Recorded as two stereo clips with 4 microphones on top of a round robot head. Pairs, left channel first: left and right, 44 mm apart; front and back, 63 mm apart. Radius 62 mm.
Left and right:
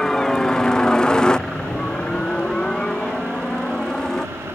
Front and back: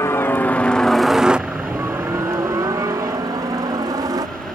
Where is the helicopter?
15° left; by 4.6 s 170° left.